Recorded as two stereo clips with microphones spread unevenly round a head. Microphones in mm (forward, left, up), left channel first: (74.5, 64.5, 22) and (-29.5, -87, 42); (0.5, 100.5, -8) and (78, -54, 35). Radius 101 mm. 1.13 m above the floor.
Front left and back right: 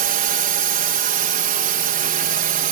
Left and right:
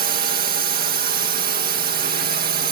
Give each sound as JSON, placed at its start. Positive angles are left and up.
{"t": 0.0, "sound": "a drone", "azimuth_deg": -100}